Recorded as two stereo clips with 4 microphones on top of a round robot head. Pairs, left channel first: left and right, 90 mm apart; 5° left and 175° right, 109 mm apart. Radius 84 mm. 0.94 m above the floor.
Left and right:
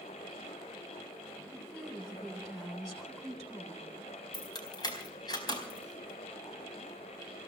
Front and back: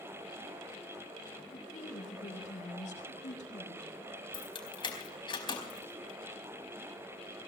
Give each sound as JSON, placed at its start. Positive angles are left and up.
{"t": 1.5, "sound": "a woman speaking", "azimuth_deg": 0, "distance_m": 7.0}
{"t": 4.3, "sound": "keys jangling", "azimuth_deg": 45, "distance_m": 4.5}